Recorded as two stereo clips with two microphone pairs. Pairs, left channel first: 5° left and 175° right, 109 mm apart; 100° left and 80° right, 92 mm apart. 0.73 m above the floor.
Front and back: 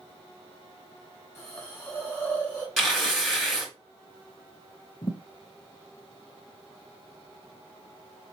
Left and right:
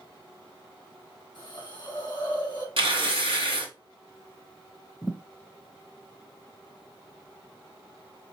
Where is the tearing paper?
80° right, 1.8 m.